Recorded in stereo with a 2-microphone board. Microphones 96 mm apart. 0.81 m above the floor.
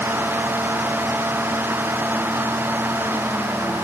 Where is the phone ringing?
No phone ringing in this recording.